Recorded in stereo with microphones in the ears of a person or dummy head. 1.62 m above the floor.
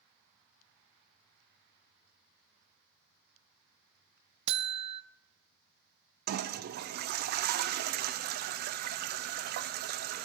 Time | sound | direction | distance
4.5 | a buzzer | 30° right (ahead or behind) | 0.5 m
6.3 | a toilet flushing | 55° right (ahead or behind) | 0.5 m